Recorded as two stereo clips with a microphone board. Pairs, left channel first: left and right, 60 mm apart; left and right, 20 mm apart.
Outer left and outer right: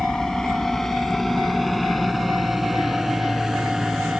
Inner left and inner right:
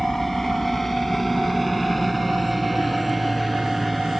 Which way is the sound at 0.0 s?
10° left (ahead or behind).